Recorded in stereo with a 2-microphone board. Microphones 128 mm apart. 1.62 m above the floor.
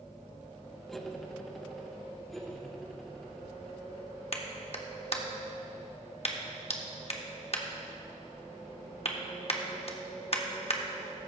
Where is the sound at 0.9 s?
5° left (ahead or behind), 0.9 m.